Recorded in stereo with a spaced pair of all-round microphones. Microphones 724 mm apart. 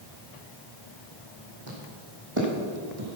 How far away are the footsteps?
About 4.5 m.